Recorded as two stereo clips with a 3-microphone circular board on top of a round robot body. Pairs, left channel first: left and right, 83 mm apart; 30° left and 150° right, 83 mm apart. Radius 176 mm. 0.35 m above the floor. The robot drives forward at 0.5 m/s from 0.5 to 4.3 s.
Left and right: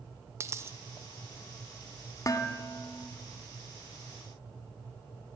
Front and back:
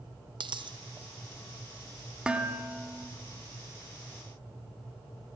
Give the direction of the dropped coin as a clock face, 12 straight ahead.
5 o'clock.